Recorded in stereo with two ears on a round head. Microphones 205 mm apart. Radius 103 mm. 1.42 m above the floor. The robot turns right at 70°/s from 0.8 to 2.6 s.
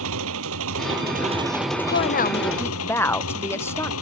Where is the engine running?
60° right; by 4.0 s 65° left.